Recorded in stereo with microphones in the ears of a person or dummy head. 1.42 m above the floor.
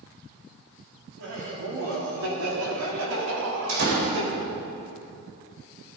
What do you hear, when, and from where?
1.2 s laughter: 60° right (ahead or behind), 4 m; by 4.3 s 85° right, 4.5 m
3.7 s a door slam: 75° right (ahead or behind), 4 m